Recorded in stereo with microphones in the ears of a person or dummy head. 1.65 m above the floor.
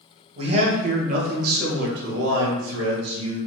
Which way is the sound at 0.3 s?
35° right (ahead or behind).